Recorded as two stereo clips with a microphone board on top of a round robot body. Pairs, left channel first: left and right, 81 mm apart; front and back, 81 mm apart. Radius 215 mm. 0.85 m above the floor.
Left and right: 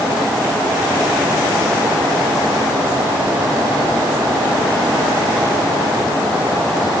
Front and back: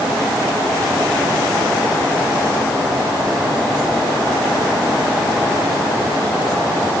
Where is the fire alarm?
I don't hear a fire alarm.